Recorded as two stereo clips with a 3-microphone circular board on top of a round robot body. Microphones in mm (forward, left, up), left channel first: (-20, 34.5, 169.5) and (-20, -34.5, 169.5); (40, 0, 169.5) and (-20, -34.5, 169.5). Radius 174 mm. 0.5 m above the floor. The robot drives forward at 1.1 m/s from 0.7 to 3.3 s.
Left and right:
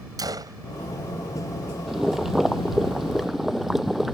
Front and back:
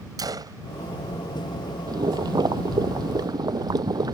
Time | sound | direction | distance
0.2 | a gunshot | 120° right | ?
1.9 | boiling | 175° right | ?